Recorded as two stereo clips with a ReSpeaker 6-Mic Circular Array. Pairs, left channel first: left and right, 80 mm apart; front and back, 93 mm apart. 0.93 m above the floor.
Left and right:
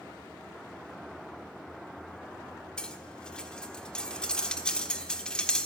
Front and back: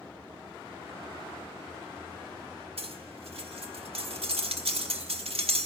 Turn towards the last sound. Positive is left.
turn(degrees=170)